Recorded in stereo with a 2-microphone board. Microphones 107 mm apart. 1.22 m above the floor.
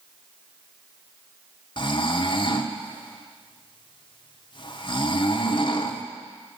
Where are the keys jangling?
No keys jangling in this recording.